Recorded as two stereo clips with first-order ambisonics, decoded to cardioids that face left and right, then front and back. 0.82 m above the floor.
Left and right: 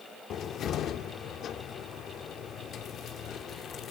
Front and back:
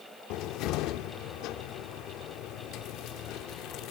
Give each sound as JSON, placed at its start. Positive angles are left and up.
{"t": 0.3, "sound": "a cupboard door", "azimuth_deg": 35, "distance_m": 1.4}